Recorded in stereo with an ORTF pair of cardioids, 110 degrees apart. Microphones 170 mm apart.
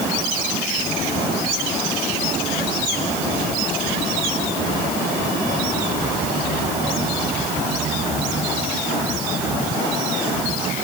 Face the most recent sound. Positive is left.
No sound to turn to.